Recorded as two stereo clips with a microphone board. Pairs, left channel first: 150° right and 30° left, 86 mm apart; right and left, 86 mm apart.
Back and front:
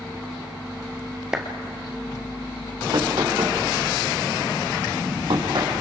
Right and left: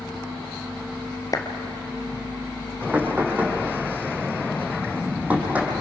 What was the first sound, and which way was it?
A clap, 50° right.